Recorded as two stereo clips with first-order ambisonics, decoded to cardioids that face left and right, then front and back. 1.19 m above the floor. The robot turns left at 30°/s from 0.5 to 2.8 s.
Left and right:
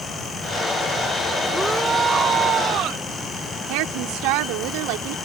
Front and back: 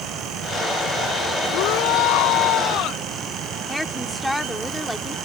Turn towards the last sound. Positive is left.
turn(degrees=-85)